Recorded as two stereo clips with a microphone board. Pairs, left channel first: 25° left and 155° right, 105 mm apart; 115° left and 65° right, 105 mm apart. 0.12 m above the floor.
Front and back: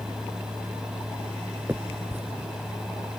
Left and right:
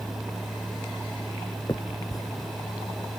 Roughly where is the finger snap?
Behind left.